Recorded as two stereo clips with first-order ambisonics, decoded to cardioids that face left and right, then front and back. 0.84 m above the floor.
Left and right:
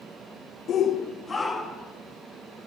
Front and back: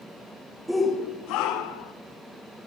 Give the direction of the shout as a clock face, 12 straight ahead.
9 o'clock.